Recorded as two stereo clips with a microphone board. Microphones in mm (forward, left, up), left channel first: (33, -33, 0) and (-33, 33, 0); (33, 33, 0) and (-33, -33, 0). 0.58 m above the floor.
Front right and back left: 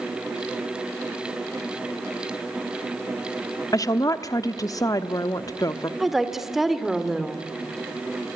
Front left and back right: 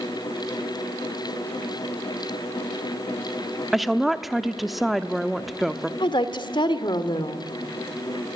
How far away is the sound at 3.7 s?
About 1.0 m.